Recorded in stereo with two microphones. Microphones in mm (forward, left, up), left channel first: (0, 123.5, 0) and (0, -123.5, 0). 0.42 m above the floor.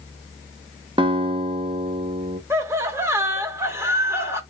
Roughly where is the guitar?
Centre.